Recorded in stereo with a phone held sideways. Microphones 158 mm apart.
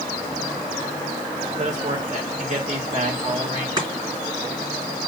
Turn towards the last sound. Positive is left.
turn(degrees=-25)  # may be behind; listen again after turning